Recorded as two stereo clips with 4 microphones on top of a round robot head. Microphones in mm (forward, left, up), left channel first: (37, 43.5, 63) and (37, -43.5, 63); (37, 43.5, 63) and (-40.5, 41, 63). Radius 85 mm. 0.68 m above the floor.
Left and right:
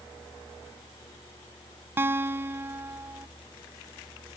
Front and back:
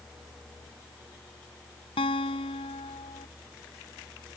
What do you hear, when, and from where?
2.0 s a guitar: 25° right